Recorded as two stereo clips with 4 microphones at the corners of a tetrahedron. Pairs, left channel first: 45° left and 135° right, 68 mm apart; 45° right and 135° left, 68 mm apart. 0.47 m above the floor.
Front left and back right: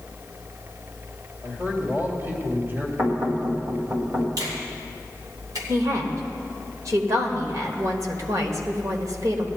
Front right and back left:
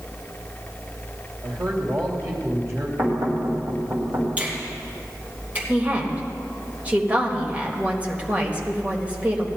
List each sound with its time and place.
1.4 s a man speaking: 170° left, 2.5 m
3.0 s knocking: straight behind, 2.5 m
4.4 s a finger snap: 160° right, 3 m
5.7 s a woman speaking: 160° right, 1.6 m